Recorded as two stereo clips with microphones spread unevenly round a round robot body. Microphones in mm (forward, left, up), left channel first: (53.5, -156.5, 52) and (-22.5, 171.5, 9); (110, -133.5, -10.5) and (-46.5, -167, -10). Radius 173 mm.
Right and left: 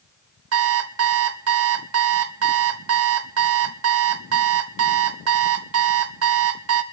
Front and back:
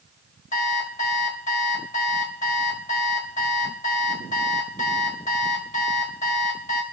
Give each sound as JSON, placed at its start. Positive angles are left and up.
{"t": 0.5, "sound": "an alarm clock", "azimuth_deg": 65, "distance_m": 1.0}